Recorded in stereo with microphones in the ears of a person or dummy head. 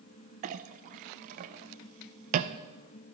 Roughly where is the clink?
Right.